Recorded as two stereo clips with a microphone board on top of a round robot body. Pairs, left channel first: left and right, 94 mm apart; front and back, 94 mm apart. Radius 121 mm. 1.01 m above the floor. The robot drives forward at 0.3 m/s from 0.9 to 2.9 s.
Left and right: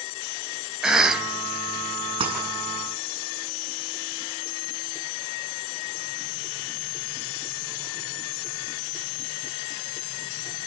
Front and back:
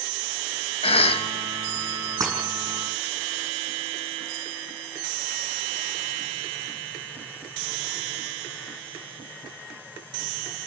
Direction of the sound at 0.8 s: 5° right.